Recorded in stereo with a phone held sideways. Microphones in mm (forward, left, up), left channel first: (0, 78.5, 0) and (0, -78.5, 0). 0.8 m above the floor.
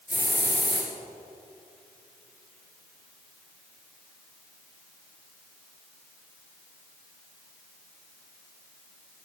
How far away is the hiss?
About 1.9 m.